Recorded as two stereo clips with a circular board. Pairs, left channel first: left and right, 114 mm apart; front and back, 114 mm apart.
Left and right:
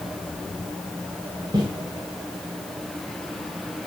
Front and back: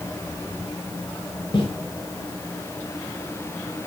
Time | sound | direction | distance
1.5 | footsteps | 40° right | 4.5 m